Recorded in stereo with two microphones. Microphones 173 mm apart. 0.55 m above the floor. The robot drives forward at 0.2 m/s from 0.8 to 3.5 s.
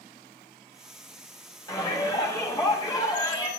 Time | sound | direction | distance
1.7 | a shout | 25° left (ahead or behind) | 4.5 m